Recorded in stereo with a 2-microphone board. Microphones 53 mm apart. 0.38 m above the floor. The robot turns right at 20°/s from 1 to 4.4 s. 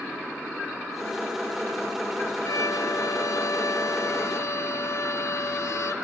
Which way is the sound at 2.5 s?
75° left.